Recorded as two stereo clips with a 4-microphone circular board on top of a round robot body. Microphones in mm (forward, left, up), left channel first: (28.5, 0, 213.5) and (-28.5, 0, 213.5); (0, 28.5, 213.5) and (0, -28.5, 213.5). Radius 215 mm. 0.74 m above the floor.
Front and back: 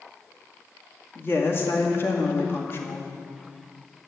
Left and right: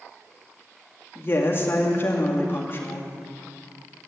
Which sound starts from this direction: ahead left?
A woman speaking, at 1.1 s.